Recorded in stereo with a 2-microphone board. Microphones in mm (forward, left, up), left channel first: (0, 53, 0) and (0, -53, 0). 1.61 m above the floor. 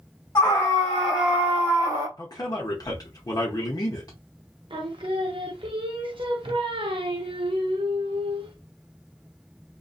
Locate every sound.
0.3 s a scream: 30° left (ahead or behind), 1.1 m; by 2.1 s 45° right (ahead or behind), 1.1 m
2.2 s a man speaking: 40° left (ahead or behind), 0.7 m
4.7 s singing: 55° right (ahead or behind), 0.5 m